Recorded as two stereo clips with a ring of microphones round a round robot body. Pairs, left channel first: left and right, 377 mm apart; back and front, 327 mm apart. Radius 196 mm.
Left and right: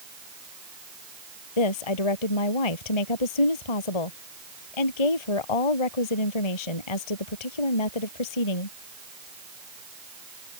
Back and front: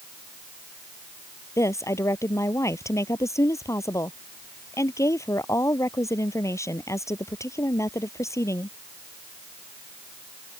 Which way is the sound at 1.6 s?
100° left.